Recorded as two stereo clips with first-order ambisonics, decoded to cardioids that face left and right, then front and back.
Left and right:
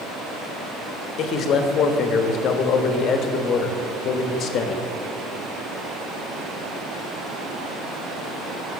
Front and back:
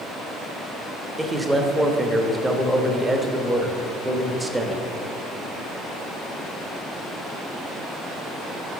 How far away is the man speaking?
About 0.7 m.